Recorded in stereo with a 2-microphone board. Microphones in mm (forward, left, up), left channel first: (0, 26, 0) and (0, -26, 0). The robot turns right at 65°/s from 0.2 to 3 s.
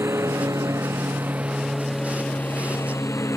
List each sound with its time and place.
0.0 s a lawn mower: 65° right (ahead or behind); by 3.4 s 75° left (ahead or behind)